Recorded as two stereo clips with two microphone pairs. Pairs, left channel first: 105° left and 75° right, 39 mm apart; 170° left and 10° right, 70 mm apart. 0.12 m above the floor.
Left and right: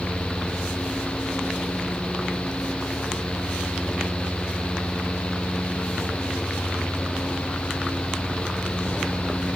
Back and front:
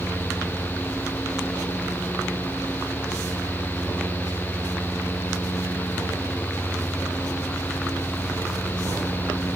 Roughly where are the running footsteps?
No running footsteps in this recording.